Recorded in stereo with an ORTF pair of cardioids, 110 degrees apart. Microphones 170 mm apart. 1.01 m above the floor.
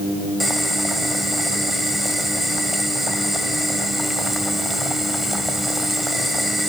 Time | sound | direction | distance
0.4 | boiling | straight ahead | 3 m